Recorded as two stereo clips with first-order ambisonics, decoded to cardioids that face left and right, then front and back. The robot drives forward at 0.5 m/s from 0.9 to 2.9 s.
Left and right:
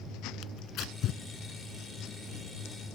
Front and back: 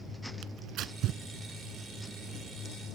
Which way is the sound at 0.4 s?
135° left.